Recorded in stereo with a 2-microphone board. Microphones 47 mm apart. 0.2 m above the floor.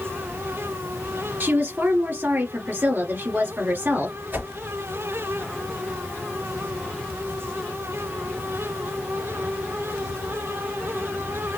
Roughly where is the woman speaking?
Right.